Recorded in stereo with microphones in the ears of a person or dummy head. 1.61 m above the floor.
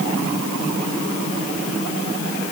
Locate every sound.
Only background noise.